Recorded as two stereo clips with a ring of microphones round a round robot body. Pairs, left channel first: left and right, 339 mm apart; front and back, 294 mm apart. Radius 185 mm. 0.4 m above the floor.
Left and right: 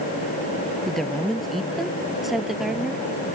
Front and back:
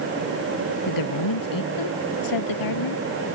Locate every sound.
0.9 s a woman speaking: straight ahead